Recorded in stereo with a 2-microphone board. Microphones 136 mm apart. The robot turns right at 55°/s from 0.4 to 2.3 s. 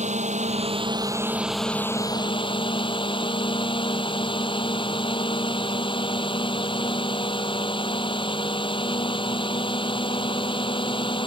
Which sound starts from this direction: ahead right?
A drone, at 0.0 s.